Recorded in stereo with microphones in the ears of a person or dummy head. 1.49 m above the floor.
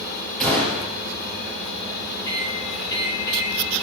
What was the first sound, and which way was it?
A gunshot, 5° left (ahead or behind).